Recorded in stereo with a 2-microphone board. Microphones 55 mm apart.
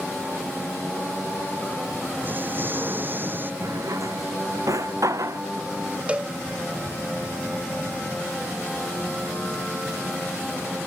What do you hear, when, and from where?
2.2 s an explosion: 40° right (ahead or behind)
3.6 s a drawer: 75° right (ahead or behind)
6.1 s a cowbell: 25° right (ahead or behind)